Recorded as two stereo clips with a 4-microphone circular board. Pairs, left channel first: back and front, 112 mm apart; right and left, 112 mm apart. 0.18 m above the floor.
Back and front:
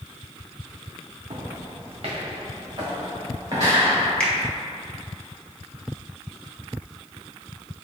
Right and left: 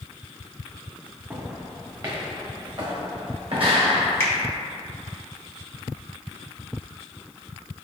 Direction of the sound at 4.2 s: 115° right.